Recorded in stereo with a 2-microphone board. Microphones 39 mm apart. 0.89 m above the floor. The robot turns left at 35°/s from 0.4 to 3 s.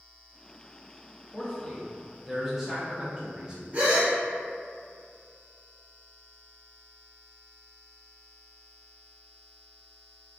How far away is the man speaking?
About 0.6 m.